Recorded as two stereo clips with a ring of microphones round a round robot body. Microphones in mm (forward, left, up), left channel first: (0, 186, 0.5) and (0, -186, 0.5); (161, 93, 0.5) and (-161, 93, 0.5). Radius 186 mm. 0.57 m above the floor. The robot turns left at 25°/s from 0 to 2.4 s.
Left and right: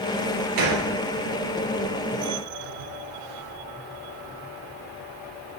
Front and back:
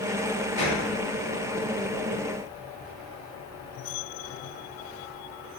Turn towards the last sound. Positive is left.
turn(degrees=-150)